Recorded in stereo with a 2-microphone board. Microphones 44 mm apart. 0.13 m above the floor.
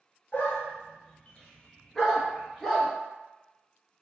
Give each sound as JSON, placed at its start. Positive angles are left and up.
{"t": 0.3, "sound": "a dog barking", "side_deg": 45, "distance_m": 0.8}